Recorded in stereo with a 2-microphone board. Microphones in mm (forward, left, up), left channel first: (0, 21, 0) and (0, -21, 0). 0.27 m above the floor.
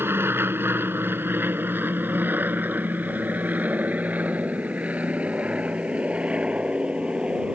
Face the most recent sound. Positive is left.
turn(degrees=-25)  # may be behind; listen again after turning